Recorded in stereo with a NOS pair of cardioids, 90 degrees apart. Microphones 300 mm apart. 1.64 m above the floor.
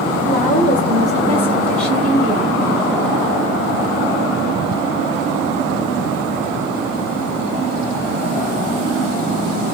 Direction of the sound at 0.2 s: 30° left.